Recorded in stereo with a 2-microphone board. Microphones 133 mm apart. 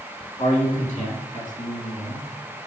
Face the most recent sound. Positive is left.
turn(degrees=70)  # may be behind; listen again after turning